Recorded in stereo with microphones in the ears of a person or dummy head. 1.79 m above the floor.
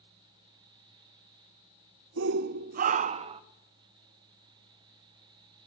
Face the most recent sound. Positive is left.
turn(degrees=-30)  # may be behind; listen again after turning